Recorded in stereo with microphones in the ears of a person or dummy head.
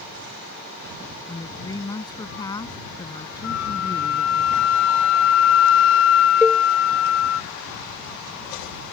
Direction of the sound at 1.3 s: 15° left (ahead or behind).